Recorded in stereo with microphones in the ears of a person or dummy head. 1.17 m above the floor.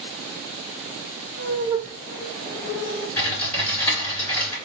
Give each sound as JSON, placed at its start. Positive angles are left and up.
{"t": 1.4, "sound": "laughter", "side_deg": -40, "distance_m": 0.7}
{"t": 3.2, "sound": "typing on a keyboard", "side_deg": 15, "distance_m": 2.5}